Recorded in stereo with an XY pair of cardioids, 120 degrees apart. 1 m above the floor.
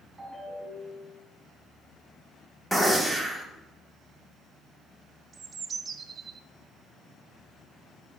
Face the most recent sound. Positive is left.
turn(degrees=-35)